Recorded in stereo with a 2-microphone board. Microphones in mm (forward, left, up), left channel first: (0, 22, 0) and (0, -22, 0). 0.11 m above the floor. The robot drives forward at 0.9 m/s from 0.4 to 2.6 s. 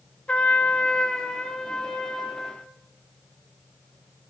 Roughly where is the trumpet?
Left.